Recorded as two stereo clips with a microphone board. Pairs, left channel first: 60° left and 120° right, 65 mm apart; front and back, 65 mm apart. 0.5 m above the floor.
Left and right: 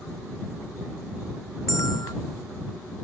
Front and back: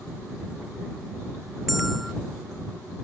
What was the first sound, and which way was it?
A bell, 90° left.